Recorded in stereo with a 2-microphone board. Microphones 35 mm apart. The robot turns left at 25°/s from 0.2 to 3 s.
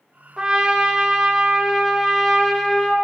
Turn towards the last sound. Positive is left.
turn(degrees=160)